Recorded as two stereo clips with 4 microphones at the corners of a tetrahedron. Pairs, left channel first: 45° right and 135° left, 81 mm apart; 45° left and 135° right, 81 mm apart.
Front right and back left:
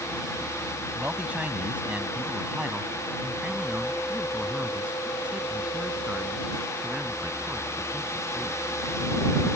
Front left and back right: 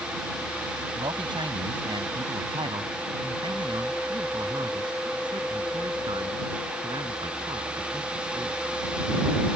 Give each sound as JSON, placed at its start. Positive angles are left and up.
{"t": 0.9, "sound": "a man speaking", "azimuth_deg": -150}